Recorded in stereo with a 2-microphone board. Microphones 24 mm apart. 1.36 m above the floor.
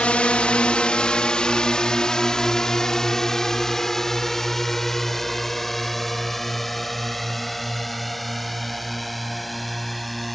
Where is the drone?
55° left (ahead or behind); by 10.3 s centre (ahead or behind).